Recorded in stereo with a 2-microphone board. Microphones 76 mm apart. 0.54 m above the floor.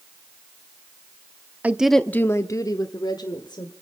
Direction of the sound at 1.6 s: 20° right (ahead or behind).